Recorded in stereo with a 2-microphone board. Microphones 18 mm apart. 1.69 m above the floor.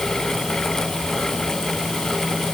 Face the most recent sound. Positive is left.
No sound to turn to.